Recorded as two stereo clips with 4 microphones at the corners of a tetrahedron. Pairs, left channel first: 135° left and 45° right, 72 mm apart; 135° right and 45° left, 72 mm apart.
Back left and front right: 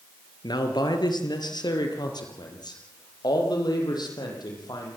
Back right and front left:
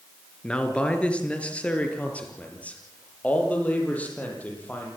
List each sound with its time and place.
0.4 s a man speaking: 150° left, 4 m; by 4.9 s 155° left, 10 m